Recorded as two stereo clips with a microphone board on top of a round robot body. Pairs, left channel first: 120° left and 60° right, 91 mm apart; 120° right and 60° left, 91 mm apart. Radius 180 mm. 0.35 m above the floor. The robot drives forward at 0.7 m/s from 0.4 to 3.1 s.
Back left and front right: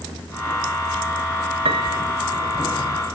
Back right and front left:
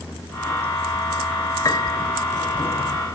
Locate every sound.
1.6 s a piano: 70° right, 1.0 m; by 2.0 s 85° right, 0.9 m